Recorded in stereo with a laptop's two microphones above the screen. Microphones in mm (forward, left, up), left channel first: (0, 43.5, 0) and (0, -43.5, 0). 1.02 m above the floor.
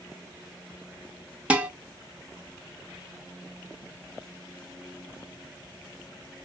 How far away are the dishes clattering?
About 0.9 m.